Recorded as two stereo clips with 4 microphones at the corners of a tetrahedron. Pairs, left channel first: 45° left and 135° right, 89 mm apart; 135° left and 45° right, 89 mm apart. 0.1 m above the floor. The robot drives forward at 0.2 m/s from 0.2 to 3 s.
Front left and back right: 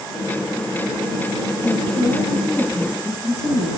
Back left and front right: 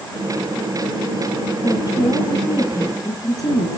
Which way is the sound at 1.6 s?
110° left.